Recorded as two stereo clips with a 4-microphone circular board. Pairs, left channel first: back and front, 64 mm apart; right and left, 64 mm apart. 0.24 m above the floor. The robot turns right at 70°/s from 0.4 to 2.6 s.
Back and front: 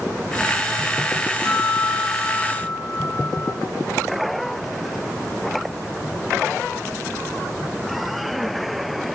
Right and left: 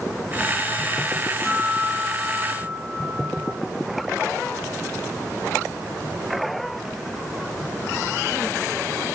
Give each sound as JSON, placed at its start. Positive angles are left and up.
{"t": 1.4, "sound": "a guitar", "azimuth_deg": 180, "distance_m": 1.4}